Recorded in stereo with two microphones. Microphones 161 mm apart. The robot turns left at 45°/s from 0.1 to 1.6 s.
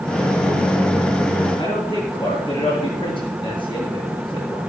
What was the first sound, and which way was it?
A man speaking, 30° left (ahead or behind).